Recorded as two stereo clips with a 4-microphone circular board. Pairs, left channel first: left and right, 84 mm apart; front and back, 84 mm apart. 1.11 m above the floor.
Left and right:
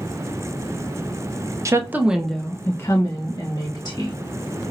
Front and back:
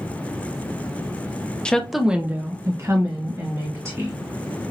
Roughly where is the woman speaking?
Right.